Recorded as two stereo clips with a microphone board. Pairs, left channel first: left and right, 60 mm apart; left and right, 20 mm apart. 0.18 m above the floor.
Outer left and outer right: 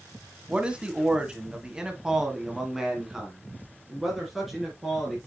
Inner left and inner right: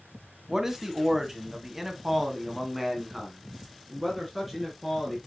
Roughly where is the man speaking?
Centre.